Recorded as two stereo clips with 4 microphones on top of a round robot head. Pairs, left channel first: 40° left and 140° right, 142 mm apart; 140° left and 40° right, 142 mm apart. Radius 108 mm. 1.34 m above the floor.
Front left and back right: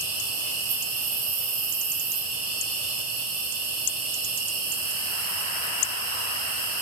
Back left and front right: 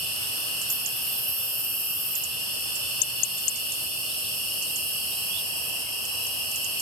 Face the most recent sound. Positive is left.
turn(degrees=-130)